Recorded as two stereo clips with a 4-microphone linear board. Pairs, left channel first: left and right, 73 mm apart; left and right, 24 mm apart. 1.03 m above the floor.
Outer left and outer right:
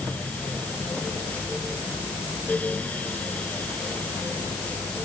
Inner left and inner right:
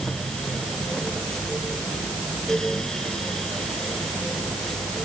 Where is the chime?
No chime in this recording.